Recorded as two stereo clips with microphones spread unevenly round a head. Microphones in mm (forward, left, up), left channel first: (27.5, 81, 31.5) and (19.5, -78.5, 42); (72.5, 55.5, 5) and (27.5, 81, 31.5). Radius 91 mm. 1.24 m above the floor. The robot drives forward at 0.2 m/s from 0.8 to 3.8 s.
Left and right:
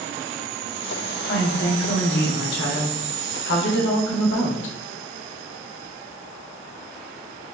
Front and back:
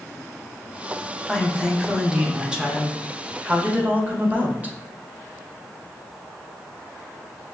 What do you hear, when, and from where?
1.3 s a woman speaking: 65° left, 1.3 m; by 4.8 s 90° left, 1.1 m